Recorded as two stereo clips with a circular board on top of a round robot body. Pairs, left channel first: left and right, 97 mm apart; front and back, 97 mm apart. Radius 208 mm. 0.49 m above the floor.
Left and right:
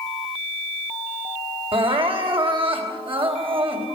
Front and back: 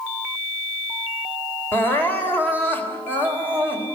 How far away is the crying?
About 3.5 m.